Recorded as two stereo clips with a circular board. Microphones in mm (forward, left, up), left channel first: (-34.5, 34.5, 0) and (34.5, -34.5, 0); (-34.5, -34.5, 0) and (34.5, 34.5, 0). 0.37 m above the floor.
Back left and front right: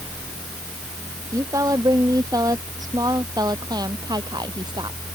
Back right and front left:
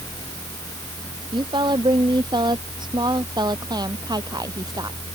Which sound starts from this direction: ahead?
A woman speaking, at 1.3 s.